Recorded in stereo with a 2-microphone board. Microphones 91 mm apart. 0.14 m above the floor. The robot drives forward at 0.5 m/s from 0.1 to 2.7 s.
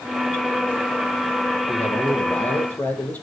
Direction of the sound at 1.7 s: 15° left (ahead or behind).